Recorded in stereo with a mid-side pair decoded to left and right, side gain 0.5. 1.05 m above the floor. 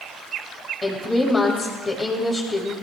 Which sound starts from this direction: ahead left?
A woman speaking, at 0.8 s.